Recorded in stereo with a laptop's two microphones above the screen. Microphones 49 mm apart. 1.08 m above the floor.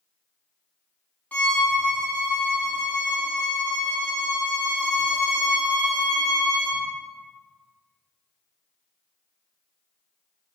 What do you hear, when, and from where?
1.3 s a violin: 30° left (ahead or behind), 0.7 m